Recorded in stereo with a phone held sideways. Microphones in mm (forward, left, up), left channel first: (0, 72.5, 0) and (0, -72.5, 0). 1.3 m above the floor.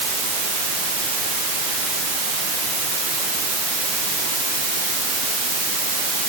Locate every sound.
Only background noise.